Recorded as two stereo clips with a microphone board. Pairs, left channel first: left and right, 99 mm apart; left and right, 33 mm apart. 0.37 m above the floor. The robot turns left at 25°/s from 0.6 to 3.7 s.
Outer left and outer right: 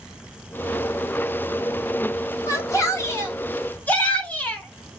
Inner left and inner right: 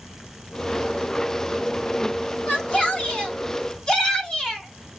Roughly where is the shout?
Ahead left.